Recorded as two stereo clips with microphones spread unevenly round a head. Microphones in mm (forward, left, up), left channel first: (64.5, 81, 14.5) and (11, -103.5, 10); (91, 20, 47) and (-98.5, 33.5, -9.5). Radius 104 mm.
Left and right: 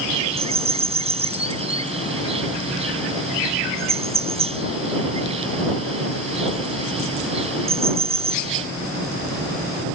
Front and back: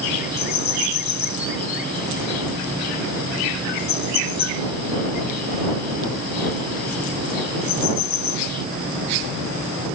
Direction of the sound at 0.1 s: 50° right.